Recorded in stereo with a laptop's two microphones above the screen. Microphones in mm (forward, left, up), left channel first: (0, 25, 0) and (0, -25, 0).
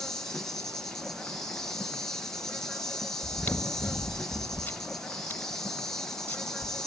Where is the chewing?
35° left (ahead or behind), 1.5 m.